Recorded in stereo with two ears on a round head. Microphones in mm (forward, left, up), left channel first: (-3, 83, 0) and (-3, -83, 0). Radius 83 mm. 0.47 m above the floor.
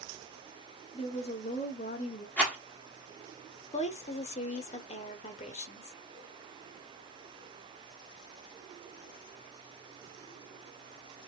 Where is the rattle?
10° left (ahead or behind), 1.5 m.